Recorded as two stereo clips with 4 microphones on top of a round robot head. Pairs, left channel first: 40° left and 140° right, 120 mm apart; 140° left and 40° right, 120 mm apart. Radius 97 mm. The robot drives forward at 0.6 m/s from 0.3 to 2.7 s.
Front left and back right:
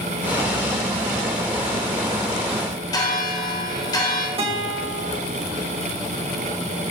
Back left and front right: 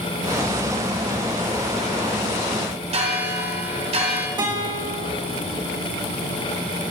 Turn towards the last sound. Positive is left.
turn(degrees=-100)